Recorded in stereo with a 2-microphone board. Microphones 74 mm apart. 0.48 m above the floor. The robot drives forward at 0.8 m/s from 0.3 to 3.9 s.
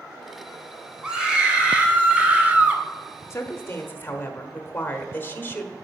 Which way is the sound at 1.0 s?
10° right (ahead or behind).